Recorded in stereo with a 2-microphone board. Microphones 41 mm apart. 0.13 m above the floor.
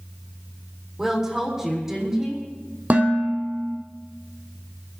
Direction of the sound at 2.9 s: 45° right (ahead or behind).